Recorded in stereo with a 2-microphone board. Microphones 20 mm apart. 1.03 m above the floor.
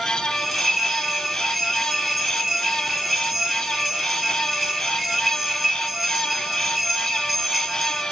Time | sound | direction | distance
0.3 | a bell | centre (ahead or behind) | 4 m